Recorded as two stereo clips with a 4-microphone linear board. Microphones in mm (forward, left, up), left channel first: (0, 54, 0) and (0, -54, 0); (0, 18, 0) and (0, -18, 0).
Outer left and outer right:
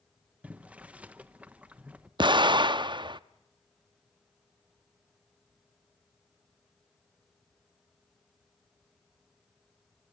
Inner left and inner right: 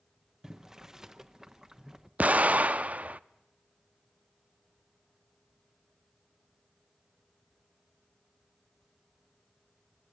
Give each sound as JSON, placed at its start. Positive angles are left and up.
{"t": 0.4, "sound": "boiling", "side_deg": -10, "distance_m": 0.9}
{"t": 2.2, "sound": "an explosion", "side_deg": -45, "distance_m": 0.5}